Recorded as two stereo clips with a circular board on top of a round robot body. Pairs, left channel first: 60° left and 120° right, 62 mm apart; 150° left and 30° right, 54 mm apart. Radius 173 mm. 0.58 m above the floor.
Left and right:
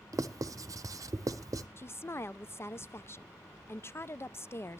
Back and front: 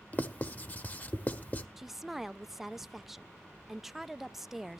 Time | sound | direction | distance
0.1 | writing | 150° right | 0.8 m
1.8 | a woman speaking | 55° left | 0.6 m